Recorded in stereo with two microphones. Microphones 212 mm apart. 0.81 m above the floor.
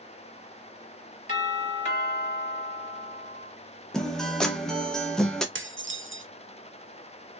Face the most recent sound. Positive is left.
turn(degrees=-65)  # may be behind; listen again after turning